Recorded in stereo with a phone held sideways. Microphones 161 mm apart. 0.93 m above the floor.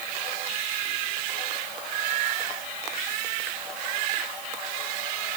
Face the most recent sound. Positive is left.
No sound to turn to.